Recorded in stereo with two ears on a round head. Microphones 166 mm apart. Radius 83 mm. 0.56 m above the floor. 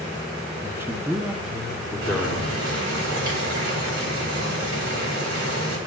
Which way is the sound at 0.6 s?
15° right (ahead or behind).